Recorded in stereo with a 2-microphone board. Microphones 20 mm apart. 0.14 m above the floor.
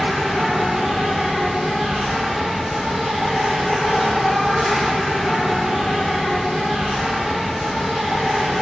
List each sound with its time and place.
0.0 s an insect: 50° right (ahead or behind), 1.7 m